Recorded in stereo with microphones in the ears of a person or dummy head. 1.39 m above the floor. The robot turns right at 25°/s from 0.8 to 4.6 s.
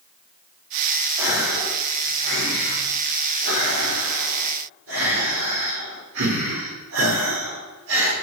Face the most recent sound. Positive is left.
turn(degrees=-80)